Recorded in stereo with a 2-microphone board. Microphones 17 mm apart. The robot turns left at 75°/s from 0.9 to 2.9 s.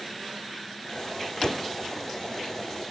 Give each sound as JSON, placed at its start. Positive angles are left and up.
{"t": 1.4, "sound": "a door slam", "side_deg": 45}